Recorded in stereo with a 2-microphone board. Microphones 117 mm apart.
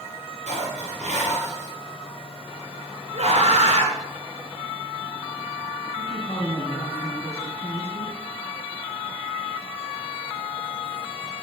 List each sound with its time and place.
0.5 s dishes clattering: 75° right (ahead or behind), 3.5 m
3.1 s a scream: 65° right (ahead or behind), 2.5 m
6.0 s a man speaking: 60° left (ahead or behind), 2.5 m